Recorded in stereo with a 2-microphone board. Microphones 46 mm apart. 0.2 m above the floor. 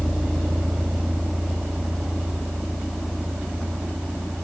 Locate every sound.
0.0 s a vehicle: centre (ahead or behind); by 4.4 s 5° right (ahead or behind)